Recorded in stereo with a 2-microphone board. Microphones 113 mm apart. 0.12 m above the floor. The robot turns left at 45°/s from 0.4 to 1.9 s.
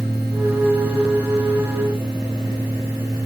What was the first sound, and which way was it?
Only background noise.